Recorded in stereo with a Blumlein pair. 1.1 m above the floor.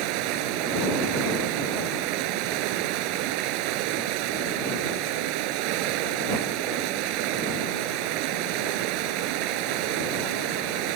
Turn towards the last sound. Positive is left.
turn(degrees=-45)